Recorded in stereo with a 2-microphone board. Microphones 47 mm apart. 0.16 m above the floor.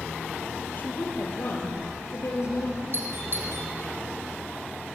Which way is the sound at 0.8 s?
40° left (ahead or behind).